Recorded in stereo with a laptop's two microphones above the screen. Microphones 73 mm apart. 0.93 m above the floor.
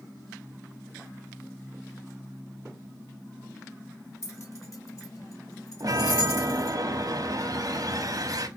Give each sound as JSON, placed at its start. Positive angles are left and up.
{"t": 4.2, "sound": "keys jangling", "side_deg": 35, "distance_m": 1.4}
{"t": 5.8, "sound": "a chime", "side_deg": -50, "distance_m": 0.7}